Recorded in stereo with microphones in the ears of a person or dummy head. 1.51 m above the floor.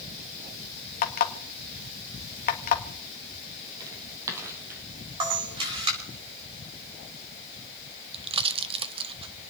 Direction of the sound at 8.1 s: 25° right (ahead or behind).